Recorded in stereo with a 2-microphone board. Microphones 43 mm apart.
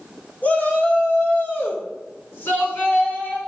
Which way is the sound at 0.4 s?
40° left (ahead or behind).